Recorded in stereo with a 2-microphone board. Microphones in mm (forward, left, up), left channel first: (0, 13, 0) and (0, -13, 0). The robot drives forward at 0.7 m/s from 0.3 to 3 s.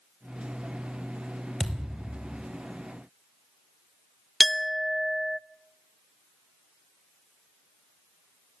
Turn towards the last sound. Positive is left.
turn(degrees=0)  # may be behind; listen again after turning